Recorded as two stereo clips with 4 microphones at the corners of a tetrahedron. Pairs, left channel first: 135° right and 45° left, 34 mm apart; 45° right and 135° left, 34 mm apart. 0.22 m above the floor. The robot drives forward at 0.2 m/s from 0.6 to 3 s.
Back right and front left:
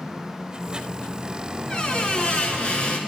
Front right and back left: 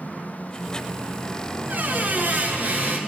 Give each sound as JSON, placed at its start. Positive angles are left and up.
{"t": 1.7, "sound": "a squeak", "azimuth_deg": 165, "distance_m": 0.5}